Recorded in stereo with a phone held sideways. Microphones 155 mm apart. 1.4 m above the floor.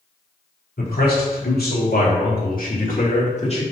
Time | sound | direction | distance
0.8 | a man speaking | 80° left | 3 m